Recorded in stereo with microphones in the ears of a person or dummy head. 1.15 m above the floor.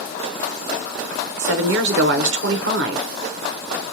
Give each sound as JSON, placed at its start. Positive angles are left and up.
{"t": 1.4, "sound": "a woman speaking", "side_deg": -65, "distance_m": 0.7}